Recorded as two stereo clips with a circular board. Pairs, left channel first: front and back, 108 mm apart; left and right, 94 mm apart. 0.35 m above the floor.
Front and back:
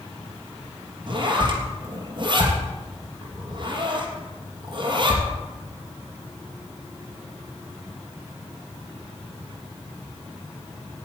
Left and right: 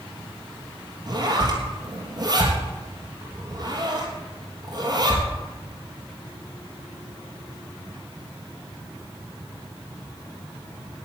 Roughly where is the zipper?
Behind right.